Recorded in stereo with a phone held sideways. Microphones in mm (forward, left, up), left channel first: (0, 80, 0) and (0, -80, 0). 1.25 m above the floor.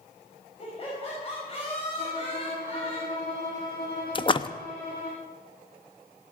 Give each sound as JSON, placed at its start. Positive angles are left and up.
{"t": 0.6, "sound": "laughter", "side_deg": 35, "distance_m": 6.0}
{"t": 2.0, "sound": "a violin", "side_deg": 75, "distance_m": 7.0}
{"t": 4.2, "sound": "a splash", "side_deg": 35, "distance_m": 0.6}